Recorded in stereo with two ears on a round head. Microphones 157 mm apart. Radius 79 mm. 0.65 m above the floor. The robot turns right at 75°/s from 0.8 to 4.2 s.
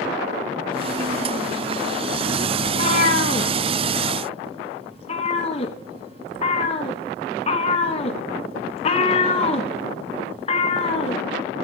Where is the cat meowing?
25° left (ahead or behind), 1.6 m; by 11.2 s 40° left (ahead or behind), 1.6 m.